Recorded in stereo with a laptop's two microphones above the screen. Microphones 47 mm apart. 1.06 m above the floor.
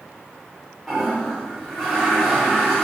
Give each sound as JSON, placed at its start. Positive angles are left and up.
{"t": 0.9, "sound": "a toilet flushing", "side_deg": 10, "distance_m": 3.0}